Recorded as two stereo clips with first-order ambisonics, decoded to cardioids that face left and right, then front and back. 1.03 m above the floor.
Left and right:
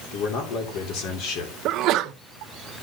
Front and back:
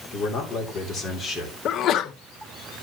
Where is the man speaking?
60° left, 3 m; by 1.6 s 75° left, 3.5 m.